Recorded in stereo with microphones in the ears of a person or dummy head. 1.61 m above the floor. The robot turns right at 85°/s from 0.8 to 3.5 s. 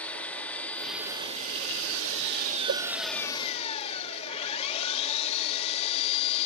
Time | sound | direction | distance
0.0 | an engine running | 175° left | ?
2.7 | a whoosh | 55° right (ahead or behind) | ?